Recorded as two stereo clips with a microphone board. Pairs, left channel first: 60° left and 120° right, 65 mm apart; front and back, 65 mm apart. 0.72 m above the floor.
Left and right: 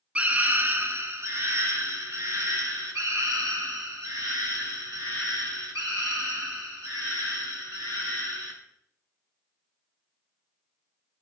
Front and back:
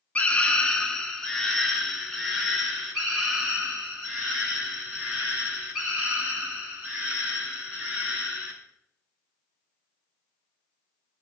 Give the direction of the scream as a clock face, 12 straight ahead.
2 o'clock.